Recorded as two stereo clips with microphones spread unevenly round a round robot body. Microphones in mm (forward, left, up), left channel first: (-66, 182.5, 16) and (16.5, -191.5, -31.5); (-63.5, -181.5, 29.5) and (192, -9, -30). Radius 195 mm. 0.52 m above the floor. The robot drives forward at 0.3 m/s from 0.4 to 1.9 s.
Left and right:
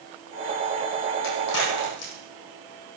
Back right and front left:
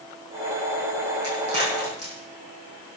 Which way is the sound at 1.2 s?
150° left.